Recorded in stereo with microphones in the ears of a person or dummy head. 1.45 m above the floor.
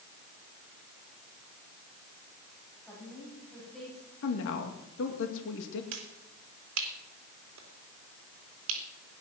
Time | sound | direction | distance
2.9 | a woman speaking | 5° left (ahead or behind) | 9.5 m
4.2 | a woman speaking | 70° left (ahead or behind) | 2 m
5.9 | a finger snap | 70° right (ahead or behind) | 3 m